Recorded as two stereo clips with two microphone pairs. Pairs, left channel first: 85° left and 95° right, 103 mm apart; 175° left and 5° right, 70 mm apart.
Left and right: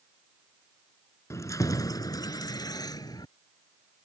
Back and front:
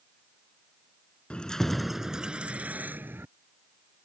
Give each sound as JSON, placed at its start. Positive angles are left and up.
{"t": 1.3, "sound": "keys jangling", "azimuth_deg": 115}